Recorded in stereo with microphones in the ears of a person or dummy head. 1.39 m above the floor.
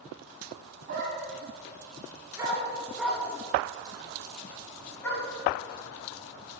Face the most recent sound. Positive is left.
turn(degrees=10)  # may be behind; listen again after turning